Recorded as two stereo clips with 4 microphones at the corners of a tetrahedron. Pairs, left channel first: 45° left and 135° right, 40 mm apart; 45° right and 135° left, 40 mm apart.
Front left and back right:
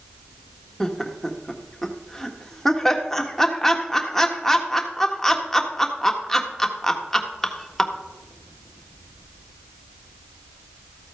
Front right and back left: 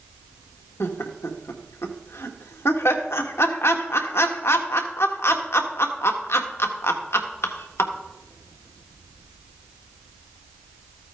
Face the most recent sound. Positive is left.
turn(degrees=-35)